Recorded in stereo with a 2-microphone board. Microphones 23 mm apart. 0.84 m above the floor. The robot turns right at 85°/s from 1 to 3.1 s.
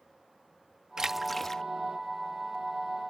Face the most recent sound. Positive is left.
turn(degrees=160)